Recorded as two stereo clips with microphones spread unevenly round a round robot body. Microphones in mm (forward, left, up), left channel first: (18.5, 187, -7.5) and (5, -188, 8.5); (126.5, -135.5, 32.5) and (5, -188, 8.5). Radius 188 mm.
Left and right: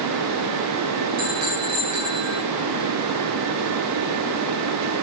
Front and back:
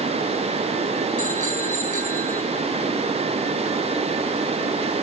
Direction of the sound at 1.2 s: 145° right.